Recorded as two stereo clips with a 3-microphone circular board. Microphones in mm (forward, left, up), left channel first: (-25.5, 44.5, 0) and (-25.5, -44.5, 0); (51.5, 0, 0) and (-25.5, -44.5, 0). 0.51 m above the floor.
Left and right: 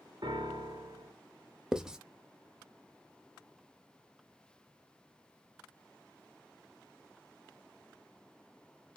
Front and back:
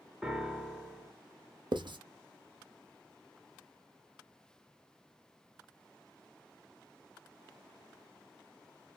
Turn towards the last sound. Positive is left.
turn(degrees=-170)